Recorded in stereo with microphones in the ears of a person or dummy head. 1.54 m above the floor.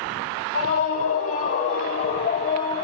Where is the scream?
50° left (ahead or behind), 3 m; by 2.8 s 35° left (ahead or behind), 1.5 m.